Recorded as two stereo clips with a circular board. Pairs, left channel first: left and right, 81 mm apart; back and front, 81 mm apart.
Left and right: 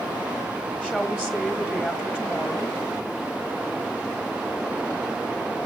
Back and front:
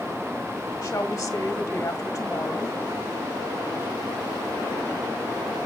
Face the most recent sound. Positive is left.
turn(degrees=-165)